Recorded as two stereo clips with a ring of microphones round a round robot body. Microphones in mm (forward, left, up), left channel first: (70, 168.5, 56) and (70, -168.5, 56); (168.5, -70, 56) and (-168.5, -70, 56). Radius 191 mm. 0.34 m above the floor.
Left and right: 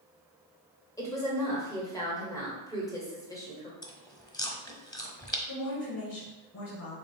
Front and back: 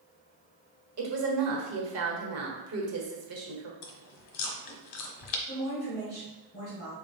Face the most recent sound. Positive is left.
turn(degrees=55)